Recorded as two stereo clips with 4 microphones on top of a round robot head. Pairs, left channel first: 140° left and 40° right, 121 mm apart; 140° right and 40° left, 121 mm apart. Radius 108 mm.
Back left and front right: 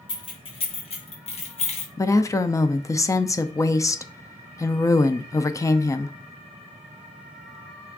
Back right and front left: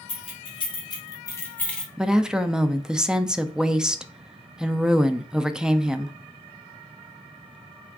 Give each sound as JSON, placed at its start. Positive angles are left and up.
{"t": 0.1, "sound": "keys jangling", "azimuth_deg": -175, "distance_m": 2.0}
{"t": 2.0, "sound": "a woman speaking", "azimuth_deg": 120, "distance_m": 0.6}